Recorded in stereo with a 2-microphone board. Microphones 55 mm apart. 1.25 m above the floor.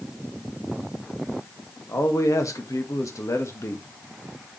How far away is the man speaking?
About 2 m.